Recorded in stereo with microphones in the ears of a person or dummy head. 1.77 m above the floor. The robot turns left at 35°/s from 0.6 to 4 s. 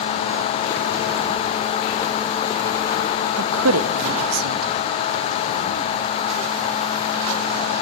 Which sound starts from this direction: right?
A woman speaking, at 3.4 s.